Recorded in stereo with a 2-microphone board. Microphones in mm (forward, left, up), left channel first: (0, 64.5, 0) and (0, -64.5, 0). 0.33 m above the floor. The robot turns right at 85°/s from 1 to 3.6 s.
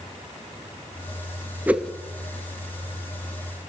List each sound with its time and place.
1.7 s a whoosh: 15° right (ahead or behind), 1.1 m; by 1.9 s 10° left (ahead or behind), 1.1 m